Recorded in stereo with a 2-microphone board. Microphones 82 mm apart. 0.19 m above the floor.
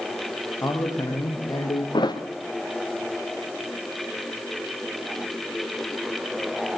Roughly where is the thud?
Left.